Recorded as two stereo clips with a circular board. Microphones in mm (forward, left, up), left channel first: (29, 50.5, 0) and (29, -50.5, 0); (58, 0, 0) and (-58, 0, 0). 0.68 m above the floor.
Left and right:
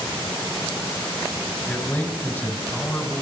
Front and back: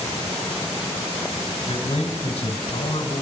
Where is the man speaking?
20° left, 2.5 m.